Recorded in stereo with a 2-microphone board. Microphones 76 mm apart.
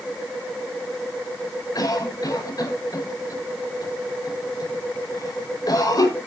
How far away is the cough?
About 5.5 m.